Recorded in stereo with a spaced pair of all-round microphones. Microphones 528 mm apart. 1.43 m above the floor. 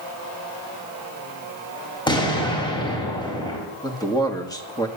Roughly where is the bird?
No bird in this recording.